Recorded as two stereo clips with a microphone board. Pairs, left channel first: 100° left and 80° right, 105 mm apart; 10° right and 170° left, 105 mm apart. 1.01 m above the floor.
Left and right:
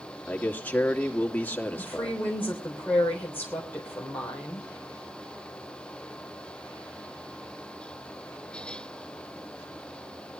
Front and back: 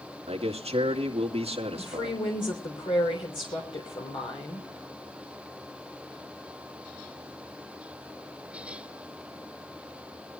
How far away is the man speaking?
About 2 m.